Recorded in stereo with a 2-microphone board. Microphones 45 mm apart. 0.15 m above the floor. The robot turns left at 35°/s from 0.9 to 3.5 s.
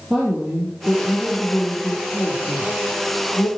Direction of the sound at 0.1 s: 150° right.